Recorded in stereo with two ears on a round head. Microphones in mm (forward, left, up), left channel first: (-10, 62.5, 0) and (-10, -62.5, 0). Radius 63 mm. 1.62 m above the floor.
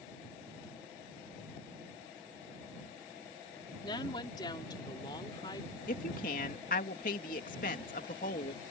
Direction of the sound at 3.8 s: 30° left (ahead or behind).